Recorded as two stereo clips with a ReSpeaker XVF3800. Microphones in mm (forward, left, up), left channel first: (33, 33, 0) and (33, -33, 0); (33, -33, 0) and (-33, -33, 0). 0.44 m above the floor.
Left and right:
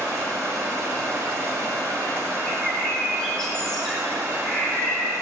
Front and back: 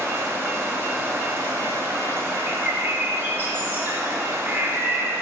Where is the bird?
165° left, 1.0 m.